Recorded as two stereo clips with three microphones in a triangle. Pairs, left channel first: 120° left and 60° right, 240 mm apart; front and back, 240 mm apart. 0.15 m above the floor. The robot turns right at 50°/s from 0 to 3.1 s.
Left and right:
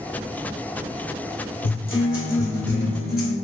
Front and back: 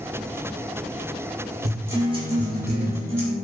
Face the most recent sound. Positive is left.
turn(degrees=160)